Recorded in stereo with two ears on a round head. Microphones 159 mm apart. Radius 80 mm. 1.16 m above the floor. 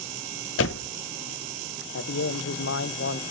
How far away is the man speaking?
About 0.7 m.